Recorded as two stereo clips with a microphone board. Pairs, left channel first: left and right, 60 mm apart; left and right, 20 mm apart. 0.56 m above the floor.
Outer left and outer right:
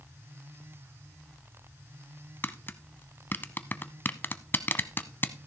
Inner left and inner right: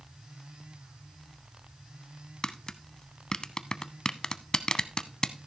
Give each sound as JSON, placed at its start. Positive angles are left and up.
{"t": 2.4, "sound": "tapping", "side_deg": 35, "distance_m": 0.6}